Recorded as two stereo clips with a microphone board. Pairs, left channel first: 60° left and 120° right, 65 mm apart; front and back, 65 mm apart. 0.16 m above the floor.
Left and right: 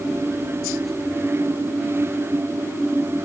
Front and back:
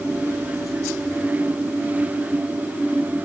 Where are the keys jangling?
I don't hear keys jangling.